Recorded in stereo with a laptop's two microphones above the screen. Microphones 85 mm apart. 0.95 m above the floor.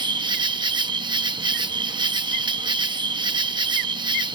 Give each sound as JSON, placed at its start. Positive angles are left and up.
{"t": 0.0, "sound": "an insect", "side_deg": -65}